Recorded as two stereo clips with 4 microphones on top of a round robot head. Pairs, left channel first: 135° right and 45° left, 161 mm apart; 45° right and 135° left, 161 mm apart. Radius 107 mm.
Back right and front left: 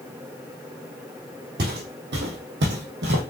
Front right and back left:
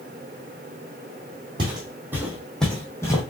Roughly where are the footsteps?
Left.